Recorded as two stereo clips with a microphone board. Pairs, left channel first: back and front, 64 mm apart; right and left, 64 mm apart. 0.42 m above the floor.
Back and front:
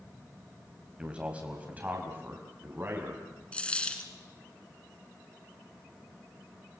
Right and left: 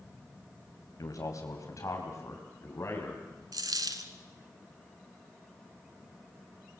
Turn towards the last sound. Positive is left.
turn(degrees=110)